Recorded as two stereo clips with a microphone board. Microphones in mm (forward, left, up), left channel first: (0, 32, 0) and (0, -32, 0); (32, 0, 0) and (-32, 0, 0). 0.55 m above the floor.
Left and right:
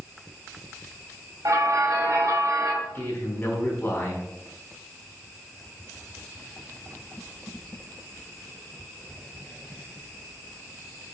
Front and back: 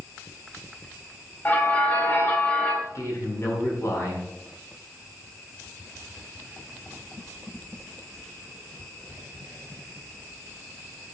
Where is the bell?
60° right, 2.5 m.